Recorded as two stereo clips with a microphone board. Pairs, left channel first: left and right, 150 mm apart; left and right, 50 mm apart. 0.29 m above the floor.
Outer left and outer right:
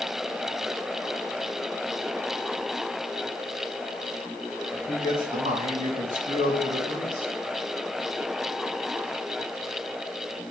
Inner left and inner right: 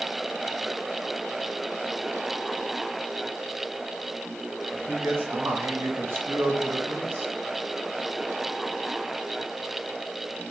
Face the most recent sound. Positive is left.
turn(degrees=-60)  # may be behind; listen again after turning